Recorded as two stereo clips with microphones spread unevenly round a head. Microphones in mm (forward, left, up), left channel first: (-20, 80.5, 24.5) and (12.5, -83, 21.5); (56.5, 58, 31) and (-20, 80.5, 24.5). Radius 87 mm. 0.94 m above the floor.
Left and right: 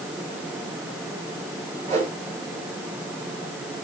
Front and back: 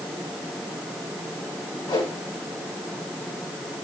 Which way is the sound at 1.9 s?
40° right.